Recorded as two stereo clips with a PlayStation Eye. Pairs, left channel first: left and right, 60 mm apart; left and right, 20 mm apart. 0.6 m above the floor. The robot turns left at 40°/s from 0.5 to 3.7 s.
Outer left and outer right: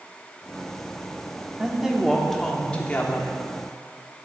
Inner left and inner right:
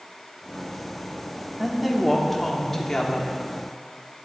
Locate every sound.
1.6 s a woman speaking: 155° right, 1.1 m; by 3.3 s 135° left, 1.1 m